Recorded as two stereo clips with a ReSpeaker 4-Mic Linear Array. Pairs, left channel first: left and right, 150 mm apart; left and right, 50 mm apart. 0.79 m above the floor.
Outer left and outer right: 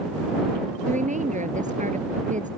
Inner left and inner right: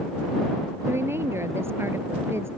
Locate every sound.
0.9 s a woman speaking: 65° right (ahead or behind)